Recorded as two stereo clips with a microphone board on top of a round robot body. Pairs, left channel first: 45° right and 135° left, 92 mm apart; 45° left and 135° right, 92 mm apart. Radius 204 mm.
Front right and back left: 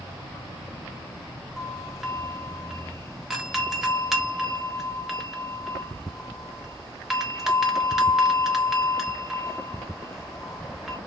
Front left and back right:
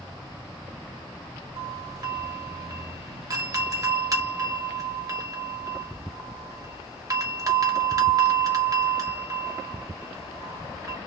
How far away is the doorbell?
About 1.3 m.